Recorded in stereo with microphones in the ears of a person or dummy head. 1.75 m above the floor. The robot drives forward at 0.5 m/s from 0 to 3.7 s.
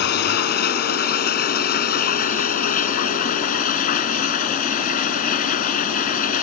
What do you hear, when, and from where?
0.0 s running water: 60° left (ahead or behind); by 6.4 s 45° left (ahead or behind)